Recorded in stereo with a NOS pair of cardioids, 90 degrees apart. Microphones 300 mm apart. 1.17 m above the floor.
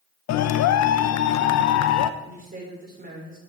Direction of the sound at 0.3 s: 65° left.